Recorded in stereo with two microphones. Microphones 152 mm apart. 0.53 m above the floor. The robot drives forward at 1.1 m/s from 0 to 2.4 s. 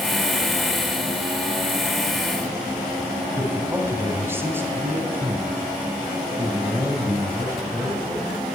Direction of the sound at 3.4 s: 15° right (ahead or behind).